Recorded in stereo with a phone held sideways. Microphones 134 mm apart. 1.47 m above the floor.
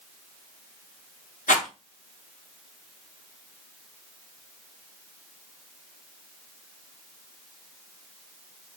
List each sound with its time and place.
1.5 s a rattle: 70° left (ahead or behind), 1.2 m